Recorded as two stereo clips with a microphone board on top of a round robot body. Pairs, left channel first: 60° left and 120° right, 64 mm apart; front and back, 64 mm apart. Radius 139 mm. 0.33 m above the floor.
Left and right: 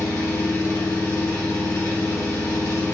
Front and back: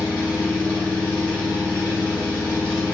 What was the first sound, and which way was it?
An engine running, 60° left.